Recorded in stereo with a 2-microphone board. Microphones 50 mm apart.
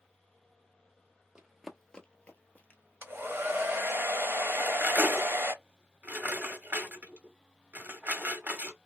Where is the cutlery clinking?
40° right (ahead or behind), 0.7 m.